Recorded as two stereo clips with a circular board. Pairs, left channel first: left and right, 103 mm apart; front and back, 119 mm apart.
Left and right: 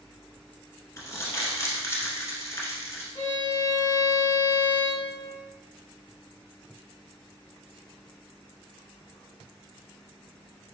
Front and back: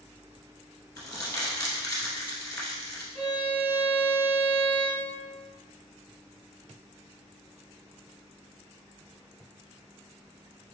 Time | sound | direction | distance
1.0 | crumpling | 50° left | 1.1 m
3.1 | a violin | 70° left | 1.5 m